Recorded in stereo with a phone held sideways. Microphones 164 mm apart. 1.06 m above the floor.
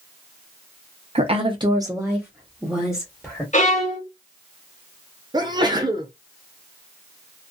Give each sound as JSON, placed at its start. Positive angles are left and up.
{"t": 1.1, "sound": "a woman speaking", "side_deg": -40, "distance_m": 0.7}
{"t": 3.5, "sound": "a violin", "side_deg": 45, "distance_m": 1.1}
{"t": 5.3, "sound": "a sneeze", "side_deg": -25, "distance_m": 0.6}